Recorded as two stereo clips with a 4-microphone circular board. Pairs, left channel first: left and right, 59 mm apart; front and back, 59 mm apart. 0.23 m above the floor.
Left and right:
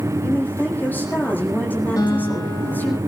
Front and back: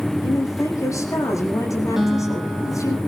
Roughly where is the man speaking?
Ahead left.